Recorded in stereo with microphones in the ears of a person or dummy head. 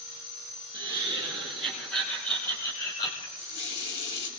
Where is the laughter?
10° right (ahead or behind), 2.5 m; by 3.3 s 30° left (ahead or behind), 1.7 m.